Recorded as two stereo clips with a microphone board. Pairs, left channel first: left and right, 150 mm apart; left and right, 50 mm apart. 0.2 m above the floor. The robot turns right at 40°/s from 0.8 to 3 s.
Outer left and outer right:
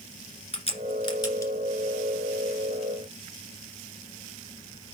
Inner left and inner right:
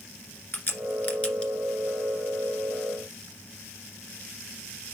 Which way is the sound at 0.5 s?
45° left (ahead or behind).